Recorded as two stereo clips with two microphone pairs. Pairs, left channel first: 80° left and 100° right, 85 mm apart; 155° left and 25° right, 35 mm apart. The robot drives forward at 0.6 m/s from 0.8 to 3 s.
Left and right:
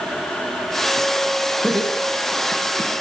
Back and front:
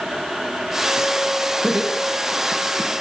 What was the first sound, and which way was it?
Laughter, 35° right.